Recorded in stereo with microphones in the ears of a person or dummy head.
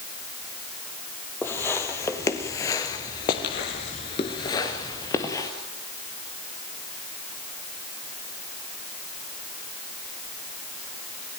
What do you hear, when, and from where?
1.4 s footsteps: 10° left (ahead or behind), 3 m; by 5.5 s 15° left (ahead or behind), 2.5 m